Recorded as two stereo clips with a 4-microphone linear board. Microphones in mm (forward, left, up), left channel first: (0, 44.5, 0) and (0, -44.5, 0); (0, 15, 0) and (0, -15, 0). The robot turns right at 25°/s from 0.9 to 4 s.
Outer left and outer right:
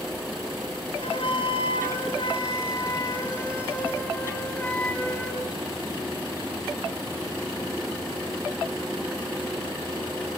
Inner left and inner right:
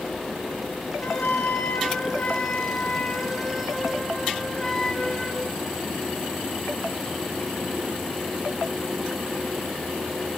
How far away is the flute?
About 3 m.